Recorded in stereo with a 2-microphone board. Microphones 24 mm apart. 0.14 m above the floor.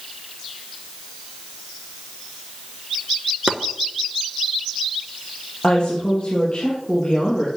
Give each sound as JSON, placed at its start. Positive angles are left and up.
{"t": 3.5, "sound": "chopping", "side_deg": -45, "distance_m": 0.8}
{"t": 5.6, "sound": "a woman speaking", "side_deg": 35, "distance_m": 3.5}